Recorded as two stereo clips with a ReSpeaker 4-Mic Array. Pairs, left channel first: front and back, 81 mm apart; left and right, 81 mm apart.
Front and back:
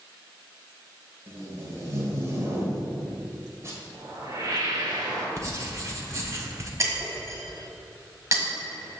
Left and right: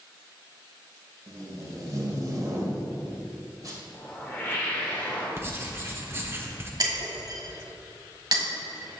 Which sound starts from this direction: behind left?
A whoosh, at 3.9 s.